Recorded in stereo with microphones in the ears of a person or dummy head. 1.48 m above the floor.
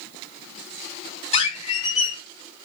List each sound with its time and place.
1.3 s a squeak: 30° left (ahead or behind), 0.6 m